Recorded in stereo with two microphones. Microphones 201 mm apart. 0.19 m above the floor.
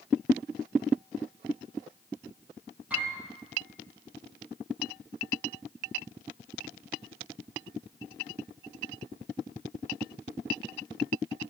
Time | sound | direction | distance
2.9 | a piano | 5° right (ahead or behind) | 7.5 m